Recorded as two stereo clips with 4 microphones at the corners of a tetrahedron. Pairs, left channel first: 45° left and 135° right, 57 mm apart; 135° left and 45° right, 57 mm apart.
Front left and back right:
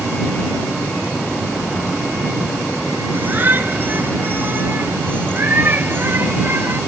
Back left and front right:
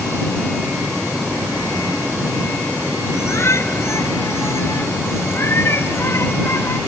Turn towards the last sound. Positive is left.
turn(degrees=175)